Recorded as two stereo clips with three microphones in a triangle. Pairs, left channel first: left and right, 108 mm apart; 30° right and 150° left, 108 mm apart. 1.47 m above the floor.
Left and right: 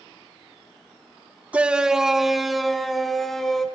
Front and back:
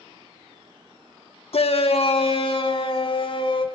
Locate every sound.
1.5 s a shout: 15° right, 1.2 m; by 3.6 s straight ahead, 4 m